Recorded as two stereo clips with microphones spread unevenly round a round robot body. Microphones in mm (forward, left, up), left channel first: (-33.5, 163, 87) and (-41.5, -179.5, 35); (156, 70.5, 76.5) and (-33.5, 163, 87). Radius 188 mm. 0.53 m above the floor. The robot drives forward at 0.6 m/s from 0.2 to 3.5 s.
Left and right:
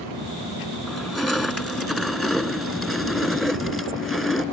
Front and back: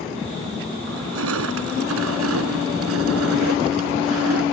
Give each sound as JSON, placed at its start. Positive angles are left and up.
{"t": 0.9, "sound": "crushing", "azimuth_deg": 180}